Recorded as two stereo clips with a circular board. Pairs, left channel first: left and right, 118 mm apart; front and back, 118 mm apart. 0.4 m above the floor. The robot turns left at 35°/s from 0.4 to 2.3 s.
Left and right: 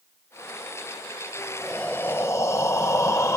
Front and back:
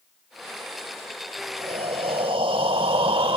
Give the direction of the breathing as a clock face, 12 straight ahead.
6 o'clock.